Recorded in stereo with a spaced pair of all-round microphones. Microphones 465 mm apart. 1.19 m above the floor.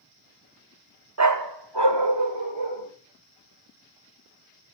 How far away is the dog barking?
About 0.8 m.